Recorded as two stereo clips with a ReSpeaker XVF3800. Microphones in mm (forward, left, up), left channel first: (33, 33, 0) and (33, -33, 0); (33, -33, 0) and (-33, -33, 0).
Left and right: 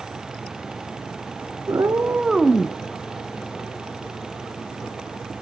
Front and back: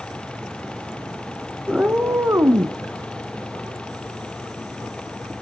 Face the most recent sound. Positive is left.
turn(degrees=155)